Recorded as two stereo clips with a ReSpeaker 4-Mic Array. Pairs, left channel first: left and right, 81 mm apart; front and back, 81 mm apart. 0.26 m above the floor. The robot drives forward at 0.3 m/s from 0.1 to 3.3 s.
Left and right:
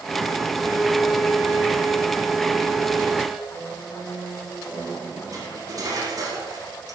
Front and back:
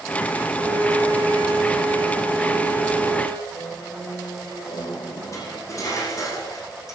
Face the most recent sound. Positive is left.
turn(degrees=-50)